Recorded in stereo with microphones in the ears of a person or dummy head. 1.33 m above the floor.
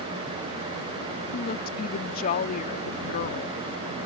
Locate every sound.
1.3 s a woman speaking: 45° left (ahead or behind)